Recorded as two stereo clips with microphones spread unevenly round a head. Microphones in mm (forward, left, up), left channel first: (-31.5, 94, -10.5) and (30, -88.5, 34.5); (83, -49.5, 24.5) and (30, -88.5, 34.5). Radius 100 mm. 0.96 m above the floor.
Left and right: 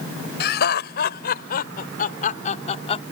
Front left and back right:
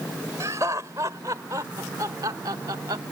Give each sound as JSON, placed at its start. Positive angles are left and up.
{"t": 0.4, "sound": "laughter", "azimuth_deg": 150}